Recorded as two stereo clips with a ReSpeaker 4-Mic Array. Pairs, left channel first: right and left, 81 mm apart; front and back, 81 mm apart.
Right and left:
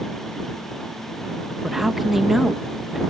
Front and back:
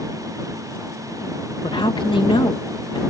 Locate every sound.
1.6 s a man speaking: 5° left